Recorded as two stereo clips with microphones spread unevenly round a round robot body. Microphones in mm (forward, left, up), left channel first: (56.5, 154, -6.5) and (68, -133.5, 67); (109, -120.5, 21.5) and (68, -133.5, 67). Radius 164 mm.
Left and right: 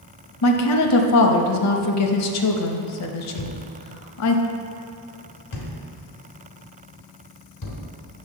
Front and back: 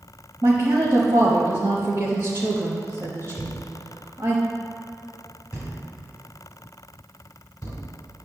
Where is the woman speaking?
125° left, 0.9 m.